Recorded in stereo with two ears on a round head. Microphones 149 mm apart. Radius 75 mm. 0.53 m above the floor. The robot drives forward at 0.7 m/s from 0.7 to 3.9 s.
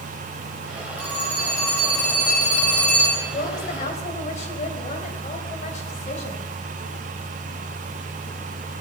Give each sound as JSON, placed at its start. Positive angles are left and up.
{"t": 1.0, "sound": "a phone ringing", "side_deg": 10, "distance_m": 6.0}
{"t": 3.3, "sound": "a woman speaking", "side_deg": 50, "distance_m": 3.0}